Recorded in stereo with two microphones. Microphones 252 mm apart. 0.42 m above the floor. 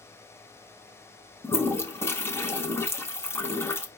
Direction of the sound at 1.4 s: 10° left (ahead or behind).